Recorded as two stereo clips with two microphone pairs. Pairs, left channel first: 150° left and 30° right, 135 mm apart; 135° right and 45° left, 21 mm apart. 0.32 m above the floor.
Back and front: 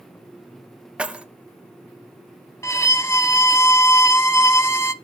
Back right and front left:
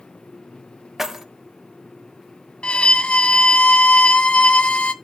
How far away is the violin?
About 0.6 m.